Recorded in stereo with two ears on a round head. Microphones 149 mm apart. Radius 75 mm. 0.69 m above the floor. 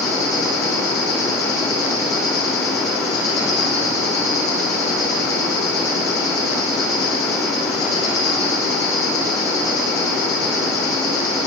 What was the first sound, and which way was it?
An insect, 20° left (ahead or behind).